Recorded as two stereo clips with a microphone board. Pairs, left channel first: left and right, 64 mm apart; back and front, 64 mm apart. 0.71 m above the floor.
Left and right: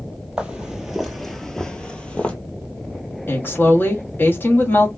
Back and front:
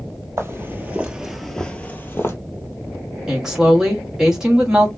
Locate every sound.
0.4 s footsteps: 20° right, 0.9 m; by 2.4 s 155° left, 0.9 m
3.3 s a woman speaking: 75° left, 1.3 m